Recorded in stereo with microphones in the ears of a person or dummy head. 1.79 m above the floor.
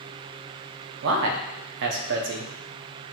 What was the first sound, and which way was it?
A man speaking, 65° right (ahead or behind).